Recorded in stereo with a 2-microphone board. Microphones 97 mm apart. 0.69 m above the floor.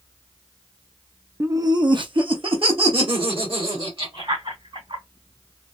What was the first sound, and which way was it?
Laughter, 25° right (ahead or behind).